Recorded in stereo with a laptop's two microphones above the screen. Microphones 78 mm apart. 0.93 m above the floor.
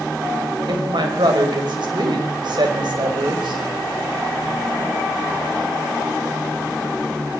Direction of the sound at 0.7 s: 70° right (ahead or behind).